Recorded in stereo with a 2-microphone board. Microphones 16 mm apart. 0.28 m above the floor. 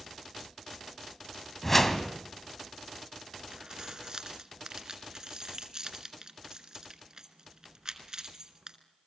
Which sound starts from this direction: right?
Keys jangling, at 3.5 s.